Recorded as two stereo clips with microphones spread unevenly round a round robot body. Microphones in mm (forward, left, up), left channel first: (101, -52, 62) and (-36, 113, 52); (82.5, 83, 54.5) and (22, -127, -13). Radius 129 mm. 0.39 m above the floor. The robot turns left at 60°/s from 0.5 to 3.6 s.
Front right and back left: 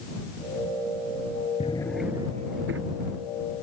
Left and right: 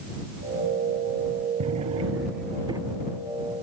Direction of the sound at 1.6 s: 115° right.